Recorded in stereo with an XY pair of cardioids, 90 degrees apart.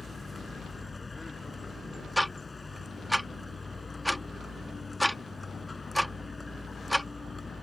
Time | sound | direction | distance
0.0 | a vehicle | 30° left | ?
2.2 | ticking | 5° left | ?